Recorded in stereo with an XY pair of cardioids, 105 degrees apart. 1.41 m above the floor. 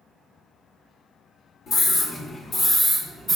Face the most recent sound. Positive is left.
turn(degrees=-20)